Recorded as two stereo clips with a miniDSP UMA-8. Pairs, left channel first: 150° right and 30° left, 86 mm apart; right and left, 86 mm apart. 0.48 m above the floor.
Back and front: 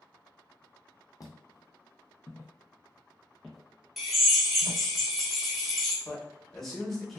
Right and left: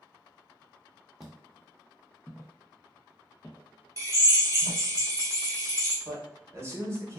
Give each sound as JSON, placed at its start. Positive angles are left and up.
{"t": 1.2, "sound": "footsteps", "azimuth_deg": 175, "distance_m": 0.8}
{"t": 4.0, "sound": "a drill", "azimuth_deg": 115, "distance_m": 1.0}
{"t": 6.0, "sound": "a man speaking", "azimuth_deg": 125, "distance_m": 0.9}